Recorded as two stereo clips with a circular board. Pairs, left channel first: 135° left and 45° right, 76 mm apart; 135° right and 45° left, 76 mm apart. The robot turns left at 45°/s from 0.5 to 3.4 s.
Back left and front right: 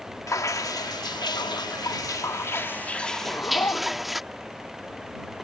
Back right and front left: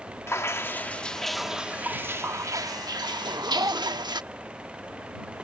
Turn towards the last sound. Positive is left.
turn(degrees=80)